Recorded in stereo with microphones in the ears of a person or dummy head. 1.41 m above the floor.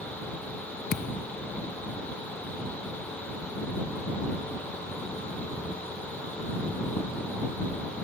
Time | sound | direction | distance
0.9 | a thud | 60° left (ahead or behind) | ?